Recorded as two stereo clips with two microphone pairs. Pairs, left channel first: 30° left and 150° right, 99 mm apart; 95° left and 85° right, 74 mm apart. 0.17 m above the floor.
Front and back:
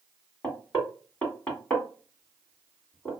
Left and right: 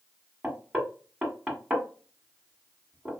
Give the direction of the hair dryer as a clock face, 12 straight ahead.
I don't hear a hair dryer.